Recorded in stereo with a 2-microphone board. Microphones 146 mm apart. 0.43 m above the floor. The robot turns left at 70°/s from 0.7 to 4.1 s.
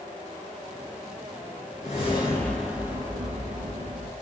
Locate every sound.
1.8 s a whoosh: 55° left, 3.5 m; by 4.1 s 100° right, 3.5 m